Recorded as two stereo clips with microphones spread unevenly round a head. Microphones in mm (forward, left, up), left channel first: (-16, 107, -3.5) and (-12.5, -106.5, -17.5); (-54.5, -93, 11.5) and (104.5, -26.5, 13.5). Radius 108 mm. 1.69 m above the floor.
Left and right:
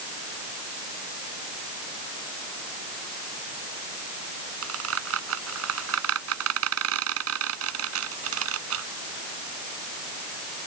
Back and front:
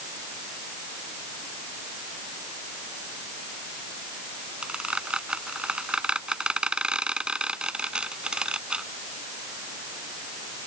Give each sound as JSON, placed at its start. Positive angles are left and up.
{"t": 4.6, "sound": "a squeak", "azimuth_deg": -60}